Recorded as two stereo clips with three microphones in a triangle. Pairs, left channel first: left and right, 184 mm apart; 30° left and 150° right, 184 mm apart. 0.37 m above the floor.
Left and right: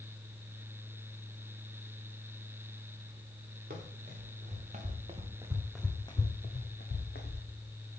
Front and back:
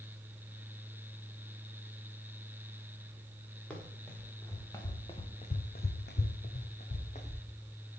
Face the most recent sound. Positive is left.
turn(degrees=85)